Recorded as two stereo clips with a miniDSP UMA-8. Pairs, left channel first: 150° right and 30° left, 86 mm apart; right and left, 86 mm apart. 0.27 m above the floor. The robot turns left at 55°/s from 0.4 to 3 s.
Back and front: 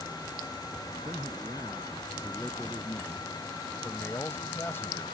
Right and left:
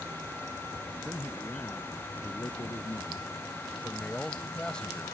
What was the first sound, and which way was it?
A man speaking, 15° left.